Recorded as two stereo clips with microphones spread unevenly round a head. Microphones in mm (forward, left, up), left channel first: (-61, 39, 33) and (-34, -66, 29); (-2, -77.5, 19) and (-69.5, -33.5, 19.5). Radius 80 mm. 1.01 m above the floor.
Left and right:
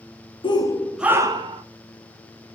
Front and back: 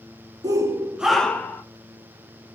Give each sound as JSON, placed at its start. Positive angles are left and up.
{"t": 0.4, "sound": "a shout", "azimuth_deg": 125, "distance_m": 1.0}